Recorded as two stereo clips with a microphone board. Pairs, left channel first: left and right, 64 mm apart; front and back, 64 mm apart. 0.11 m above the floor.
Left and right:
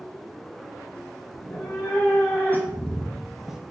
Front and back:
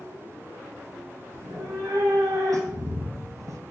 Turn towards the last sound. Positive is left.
turn(degrees=-165)